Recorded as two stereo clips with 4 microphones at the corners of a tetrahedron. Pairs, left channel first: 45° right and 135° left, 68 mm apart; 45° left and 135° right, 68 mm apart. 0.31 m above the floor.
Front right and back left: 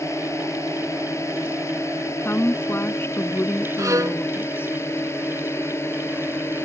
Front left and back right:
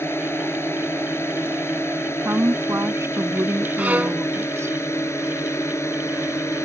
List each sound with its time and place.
0.0 s a drone: 5° right; by 6.7 s straight ahead
2.2 s a woman speaking: 95° right
3.8 s a violin: 160° left